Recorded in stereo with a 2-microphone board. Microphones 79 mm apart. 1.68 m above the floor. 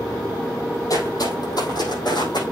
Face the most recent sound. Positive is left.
turn(degrees=65)  # may be behind; listen again after turning